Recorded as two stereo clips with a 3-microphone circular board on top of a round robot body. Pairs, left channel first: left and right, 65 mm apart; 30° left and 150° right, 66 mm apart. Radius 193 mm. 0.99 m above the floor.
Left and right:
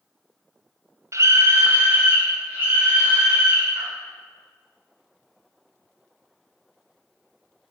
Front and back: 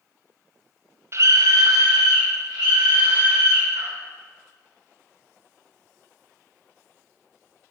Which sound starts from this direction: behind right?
A scream, at 1.1 s.